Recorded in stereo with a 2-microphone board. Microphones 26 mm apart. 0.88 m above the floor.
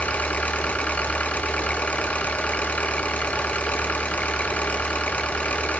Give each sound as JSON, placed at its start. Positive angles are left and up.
{"t": 0.0, "sound": "an engine running", "side_deg": 65, "distance_m": 1.2}